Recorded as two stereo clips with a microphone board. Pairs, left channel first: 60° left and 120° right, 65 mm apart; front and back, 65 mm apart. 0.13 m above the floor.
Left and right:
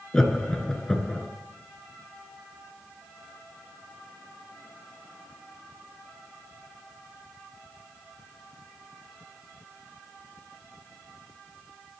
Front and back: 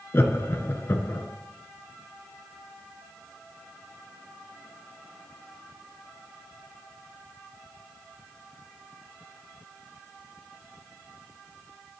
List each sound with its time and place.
0.1 s laughter: 20° right, 1.4 m